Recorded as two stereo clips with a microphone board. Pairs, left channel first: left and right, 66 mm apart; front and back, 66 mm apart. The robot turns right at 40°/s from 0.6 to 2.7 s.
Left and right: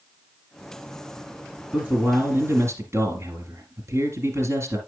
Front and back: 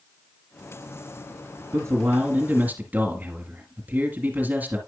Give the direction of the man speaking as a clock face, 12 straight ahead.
5 o'clock.